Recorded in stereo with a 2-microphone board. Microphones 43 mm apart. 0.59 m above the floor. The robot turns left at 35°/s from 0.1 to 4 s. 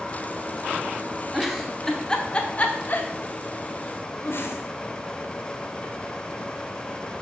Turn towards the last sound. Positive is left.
turn(degrees=60)  # may be behind; listen again after turning